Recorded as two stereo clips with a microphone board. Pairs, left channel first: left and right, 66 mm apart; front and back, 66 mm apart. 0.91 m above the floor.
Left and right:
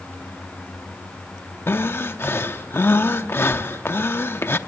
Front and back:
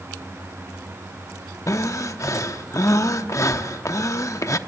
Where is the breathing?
35° left, 0.8 m.